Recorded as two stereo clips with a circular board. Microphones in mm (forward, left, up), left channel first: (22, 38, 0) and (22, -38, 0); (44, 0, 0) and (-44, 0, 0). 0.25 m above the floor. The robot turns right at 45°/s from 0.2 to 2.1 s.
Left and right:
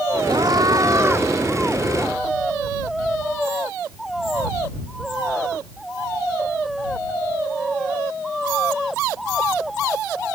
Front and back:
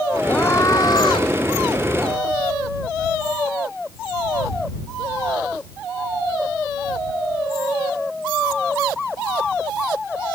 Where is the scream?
70° right; by 1.3 s 25° right.